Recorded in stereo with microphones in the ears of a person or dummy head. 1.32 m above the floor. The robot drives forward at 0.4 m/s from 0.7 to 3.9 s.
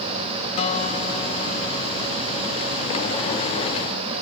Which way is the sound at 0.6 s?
30° left (ahead or behind).